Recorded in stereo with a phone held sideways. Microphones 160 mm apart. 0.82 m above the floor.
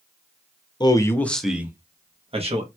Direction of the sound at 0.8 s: 30° left (ahead or behind).